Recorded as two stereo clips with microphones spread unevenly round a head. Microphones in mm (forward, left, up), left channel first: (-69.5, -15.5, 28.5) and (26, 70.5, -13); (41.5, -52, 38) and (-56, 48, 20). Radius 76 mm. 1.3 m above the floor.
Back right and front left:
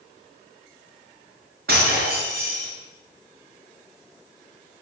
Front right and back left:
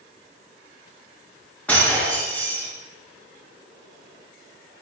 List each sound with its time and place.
1.7 s breaking glass: 35° left, 8 m